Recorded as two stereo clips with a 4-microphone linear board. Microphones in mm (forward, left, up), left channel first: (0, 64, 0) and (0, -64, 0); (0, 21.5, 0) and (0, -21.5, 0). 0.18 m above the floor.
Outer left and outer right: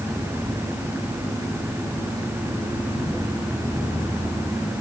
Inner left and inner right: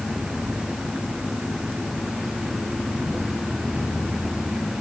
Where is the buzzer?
I don't hear a buzzer.